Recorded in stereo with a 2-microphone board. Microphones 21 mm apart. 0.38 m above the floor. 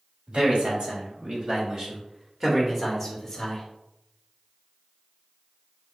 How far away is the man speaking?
About 2.5 m.